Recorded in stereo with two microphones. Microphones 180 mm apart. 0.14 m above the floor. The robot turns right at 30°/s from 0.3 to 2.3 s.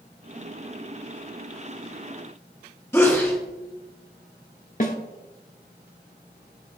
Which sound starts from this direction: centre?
A sneeze, at 2.9 s.